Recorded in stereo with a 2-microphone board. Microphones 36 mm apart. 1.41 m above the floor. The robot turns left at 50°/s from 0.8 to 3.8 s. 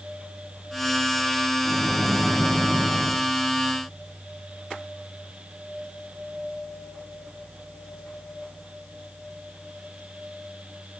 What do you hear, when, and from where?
1.6 s a microwave: 15° left, 1.3 m; by 3.2 s 60° right, 1.3 m